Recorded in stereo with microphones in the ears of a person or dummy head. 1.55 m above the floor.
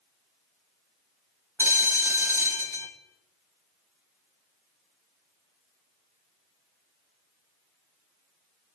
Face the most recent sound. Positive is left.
turn(degrees=-15)  # may be behind; listen again after turning